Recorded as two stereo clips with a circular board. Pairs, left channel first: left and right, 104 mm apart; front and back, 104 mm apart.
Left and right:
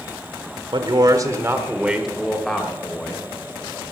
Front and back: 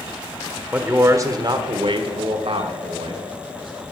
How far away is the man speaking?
About 1.4 m.